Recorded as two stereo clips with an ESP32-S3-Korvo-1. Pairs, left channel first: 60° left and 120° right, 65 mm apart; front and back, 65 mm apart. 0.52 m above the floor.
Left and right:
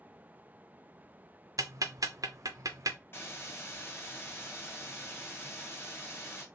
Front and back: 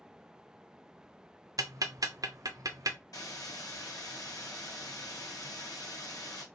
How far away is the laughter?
I don't hear laughter.